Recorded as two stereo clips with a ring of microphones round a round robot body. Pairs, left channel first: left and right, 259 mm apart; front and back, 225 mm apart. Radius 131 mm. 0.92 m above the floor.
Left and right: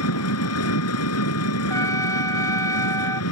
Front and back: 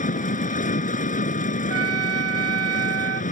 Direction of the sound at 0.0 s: 55° left.